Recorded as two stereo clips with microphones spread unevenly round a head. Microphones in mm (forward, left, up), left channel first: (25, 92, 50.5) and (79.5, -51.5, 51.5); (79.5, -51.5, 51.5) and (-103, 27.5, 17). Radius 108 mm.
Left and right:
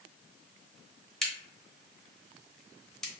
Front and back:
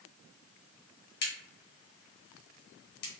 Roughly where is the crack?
Ahead left.